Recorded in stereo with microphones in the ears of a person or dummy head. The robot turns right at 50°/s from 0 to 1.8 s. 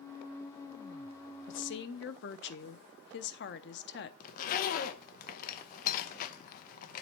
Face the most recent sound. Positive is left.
turn(degrees=50)  # may be behind; listen again after turning